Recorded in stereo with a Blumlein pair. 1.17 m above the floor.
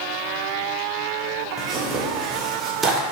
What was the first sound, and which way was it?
Tearing paper, 20° right.